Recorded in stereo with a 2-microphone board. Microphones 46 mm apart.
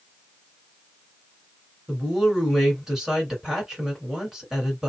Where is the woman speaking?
5° right (ahead or behind), 1.9 m.